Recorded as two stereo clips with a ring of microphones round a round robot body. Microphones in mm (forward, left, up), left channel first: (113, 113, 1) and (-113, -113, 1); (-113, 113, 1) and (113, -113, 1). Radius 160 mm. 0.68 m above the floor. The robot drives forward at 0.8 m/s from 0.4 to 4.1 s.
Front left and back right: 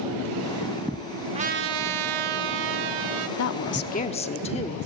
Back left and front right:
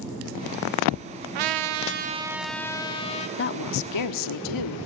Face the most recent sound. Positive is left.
turn(degrees=115)